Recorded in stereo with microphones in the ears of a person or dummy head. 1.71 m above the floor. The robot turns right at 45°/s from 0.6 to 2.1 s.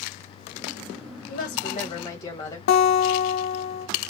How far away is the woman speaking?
About 1.6 m.